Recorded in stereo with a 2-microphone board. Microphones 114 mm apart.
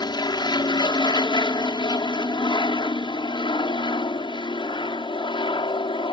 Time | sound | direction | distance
0.0 | an aircraft | 40° left (ahead or behind) | ?